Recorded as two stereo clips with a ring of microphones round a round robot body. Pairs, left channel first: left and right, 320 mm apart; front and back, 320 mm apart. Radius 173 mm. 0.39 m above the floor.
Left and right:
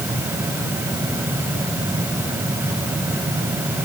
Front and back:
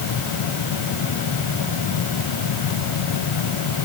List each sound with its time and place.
Only background noise.